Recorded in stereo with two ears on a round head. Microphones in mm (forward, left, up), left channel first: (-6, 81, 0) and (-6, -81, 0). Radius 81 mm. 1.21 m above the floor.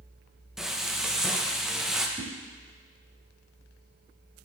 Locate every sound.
0.6 s frying: 5° right (ahead or behind), 0.7 m
2.2 s a whoosh: 25° right (ahead or behind), 1.7 m